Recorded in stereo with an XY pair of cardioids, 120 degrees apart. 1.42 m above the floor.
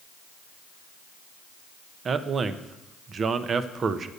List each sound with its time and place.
2.0 s a man speaking: 40° right, 0.7 m